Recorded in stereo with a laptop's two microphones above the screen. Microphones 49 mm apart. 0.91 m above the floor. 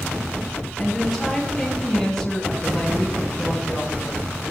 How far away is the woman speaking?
About 8 m.